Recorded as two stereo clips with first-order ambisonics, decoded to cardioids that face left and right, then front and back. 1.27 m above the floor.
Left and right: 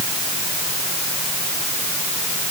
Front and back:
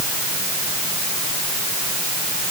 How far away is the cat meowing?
No cat meowing in this recording.